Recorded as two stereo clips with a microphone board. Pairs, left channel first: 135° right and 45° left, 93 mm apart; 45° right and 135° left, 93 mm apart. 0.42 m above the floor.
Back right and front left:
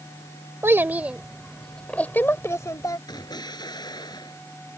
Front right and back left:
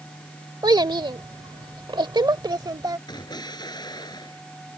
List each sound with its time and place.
0.6 s a child speaking: 105° left; by 3.0 s straight behind
3.1 s an explosion: 90° right